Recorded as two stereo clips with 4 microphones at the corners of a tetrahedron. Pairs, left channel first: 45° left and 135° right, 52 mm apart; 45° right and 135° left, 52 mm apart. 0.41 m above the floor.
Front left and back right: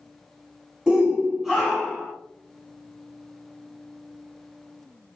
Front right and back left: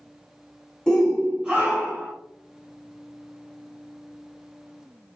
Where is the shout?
90° right, 0.7 m; by 2.1 s 125° left, 0.9 m.